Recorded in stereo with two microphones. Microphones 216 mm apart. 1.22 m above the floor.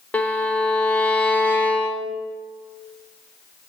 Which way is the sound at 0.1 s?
5° left (ahead or behind).